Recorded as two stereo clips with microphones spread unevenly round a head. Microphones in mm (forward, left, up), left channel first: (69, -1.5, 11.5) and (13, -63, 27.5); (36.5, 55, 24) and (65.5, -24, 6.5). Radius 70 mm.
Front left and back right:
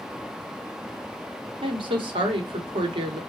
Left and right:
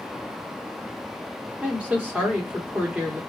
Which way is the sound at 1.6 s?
140° right.